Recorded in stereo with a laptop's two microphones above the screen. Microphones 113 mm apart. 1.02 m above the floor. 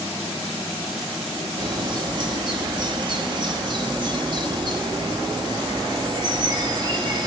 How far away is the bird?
About 0.9 m.